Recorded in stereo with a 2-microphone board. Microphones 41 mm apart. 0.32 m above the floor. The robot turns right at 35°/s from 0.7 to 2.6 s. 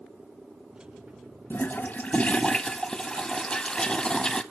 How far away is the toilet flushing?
About 0.6 m.